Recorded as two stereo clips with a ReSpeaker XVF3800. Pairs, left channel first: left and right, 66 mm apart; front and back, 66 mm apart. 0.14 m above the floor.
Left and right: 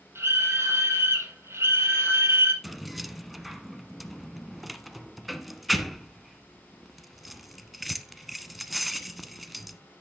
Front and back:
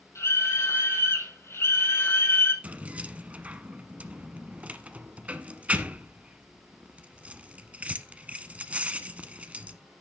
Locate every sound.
0.1 s a scream: 40° right, 5.5 m; by 2.5 s 50° right, 3.5 m
2.6 s keys jangling: 175° right, 0.8 m